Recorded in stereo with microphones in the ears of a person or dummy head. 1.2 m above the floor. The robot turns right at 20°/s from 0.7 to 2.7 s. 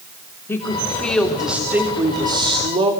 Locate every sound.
0.5 s a woman speaking: 165° left, 3 m; by 2.9 s 155° right, 3 m